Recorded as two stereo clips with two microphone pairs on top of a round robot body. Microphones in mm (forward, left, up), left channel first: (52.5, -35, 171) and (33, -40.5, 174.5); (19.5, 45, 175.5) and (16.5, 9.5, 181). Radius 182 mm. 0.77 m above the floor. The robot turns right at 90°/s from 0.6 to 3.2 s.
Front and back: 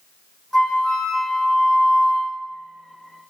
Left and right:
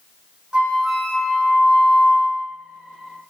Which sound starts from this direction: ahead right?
A flute, at 0.5 s.